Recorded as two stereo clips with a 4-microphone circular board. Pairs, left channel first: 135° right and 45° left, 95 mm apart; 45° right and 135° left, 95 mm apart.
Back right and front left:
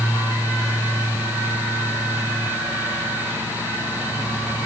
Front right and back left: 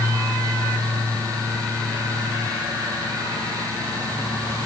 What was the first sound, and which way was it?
Only background noise.